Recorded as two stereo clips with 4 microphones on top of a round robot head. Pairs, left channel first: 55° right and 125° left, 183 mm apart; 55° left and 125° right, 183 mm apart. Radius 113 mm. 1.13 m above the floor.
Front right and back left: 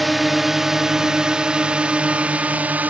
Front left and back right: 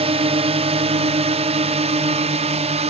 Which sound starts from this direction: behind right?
A drone, at 0.0 s.